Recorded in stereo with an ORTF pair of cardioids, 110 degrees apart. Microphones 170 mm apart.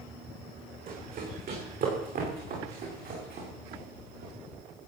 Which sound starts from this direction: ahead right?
Running footsteps, at 0.9 s.